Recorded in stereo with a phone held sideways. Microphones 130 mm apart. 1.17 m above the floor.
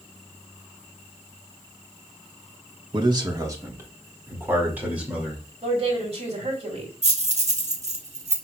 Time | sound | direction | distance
2.9 | a man speaking | 35° right (ahead or behind) | 1.2 m
5.6 | a woman speaking | 55° right (ahead or behind) | 2.5 m
7.0 | keys jangling | 60° right (ahead or behind) | 1.3 m